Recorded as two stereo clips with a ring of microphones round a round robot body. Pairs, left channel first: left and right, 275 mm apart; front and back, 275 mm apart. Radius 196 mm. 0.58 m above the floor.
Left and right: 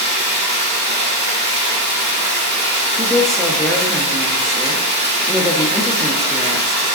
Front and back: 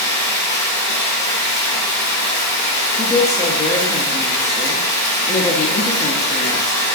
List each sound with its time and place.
0.0 s running water: 35° right, 1.4 m
3.0 s a woman speaking: straight ahead, 0.6 m